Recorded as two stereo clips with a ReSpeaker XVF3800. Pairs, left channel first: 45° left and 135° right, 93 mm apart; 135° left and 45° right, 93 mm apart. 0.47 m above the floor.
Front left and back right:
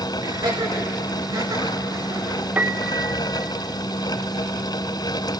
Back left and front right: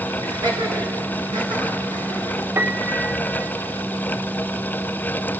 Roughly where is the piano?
Right.